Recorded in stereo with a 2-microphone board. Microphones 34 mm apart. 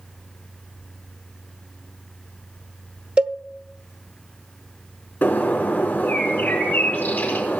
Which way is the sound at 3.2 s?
35° right (ahead or behind).